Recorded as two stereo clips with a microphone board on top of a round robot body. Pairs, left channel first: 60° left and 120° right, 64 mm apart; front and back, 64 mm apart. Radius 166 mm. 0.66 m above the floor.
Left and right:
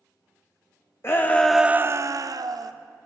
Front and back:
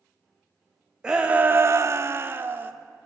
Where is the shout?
105° left, 0.8 m; by 2.7 s 120° right, 1.1 m.